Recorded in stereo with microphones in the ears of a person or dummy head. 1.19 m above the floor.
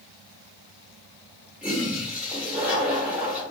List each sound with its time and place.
1.6 s a toilet flushing: 5° right (ahead or behind), 1.0 m